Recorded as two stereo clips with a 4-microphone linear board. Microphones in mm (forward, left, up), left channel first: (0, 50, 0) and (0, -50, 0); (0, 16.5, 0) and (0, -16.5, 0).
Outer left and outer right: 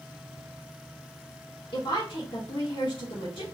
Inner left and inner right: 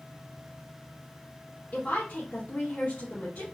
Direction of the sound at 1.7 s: 60° left (ahead or behind).